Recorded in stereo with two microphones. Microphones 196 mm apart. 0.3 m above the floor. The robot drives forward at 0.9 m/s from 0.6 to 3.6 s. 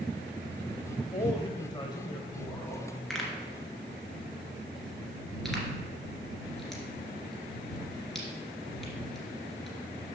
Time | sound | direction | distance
1.1 | a man speaking | 25° left (ahead or behind) | 1.0 m
3.1 | a pop | centre (ahead or behind) | 1.8 m